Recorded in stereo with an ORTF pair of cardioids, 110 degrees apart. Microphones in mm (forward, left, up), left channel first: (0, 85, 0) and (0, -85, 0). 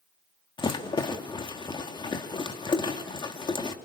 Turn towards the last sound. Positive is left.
turn(degrees=25)